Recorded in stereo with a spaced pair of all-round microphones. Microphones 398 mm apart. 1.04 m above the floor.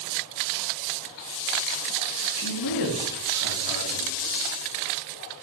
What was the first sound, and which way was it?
A man speaking, 50° left (ahead or behind).